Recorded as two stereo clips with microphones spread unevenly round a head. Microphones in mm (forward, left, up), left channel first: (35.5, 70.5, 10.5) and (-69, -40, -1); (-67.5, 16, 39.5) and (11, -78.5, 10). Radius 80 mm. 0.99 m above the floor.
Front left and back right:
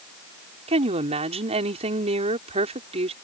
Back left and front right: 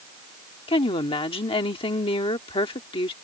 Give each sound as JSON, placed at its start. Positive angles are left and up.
{"t": 0.7, "sound": "a woman speaking", "azimuth_deg": 180}